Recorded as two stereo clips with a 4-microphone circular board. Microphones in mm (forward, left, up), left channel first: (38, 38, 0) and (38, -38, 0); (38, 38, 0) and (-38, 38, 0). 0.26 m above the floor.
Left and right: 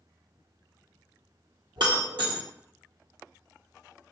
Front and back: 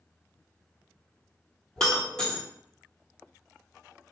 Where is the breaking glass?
75° right, 1.2 m.